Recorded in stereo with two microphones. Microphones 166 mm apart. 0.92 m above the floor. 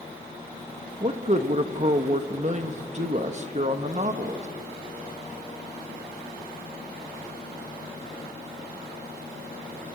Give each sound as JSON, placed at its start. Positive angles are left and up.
{"t": 1.0, "sound": "a man speaking", "side_deg": -45, "distance_m": 1.3}